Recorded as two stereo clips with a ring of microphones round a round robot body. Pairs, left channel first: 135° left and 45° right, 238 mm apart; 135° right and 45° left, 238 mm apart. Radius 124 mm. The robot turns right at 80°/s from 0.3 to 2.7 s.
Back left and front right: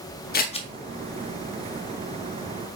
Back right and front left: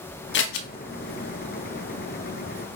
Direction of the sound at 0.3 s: 175° right.